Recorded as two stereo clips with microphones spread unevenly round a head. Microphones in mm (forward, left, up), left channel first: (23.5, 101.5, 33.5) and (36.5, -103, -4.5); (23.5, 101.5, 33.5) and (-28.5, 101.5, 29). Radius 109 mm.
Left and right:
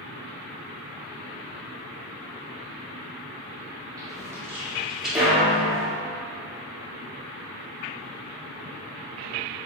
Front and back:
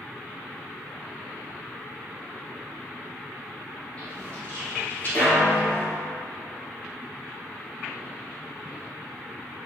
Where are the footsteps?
15° right, 1.3 m; by 6.0 s 20° left, 1.8 m.